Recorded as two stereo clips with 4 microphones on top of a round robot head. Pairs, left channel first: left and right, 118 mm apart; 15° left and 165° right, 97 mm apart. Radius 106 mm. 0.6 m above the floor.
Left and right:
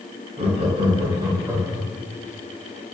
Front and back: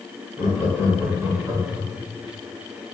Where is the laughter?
100° right, 1.7 m; by 1.9 s 165° right, 1.4 m.